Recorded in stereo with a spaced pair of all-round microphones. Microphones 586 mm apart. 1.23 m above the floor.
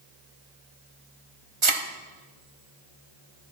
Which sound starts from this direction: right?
A thud, at 1.6 s.